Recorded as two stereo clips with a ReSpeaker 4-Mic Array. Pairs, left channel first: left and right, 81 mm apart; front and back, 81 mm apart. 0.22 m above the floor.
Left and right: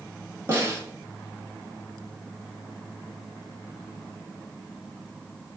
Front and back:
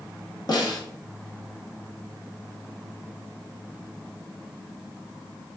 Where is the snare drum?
35° right, 1.0 m.